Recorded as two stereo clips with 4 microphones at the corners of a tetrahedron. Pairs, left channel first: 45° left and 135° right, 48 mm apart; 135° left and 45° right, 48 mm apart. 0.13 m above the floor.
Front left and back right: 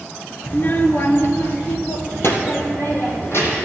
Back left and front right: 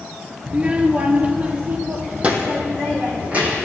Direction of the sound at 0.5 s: 10° left.